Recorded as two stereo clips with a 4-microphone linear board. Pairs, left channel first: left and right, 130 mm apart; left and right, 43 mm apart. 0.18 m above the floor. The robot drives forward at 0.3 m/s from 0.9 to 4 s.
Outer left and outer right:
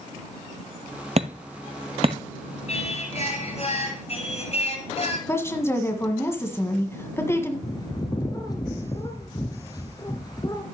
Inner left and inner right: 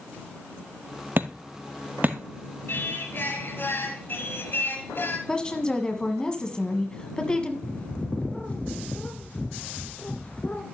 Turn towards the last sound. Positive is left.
turn(degrees=30)  # may be behind; listen again after turning